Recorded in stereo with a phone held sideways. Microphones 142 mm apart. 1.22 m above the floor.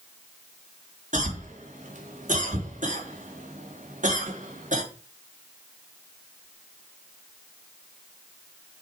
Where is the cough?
65° right (ahead or behind), 3 m.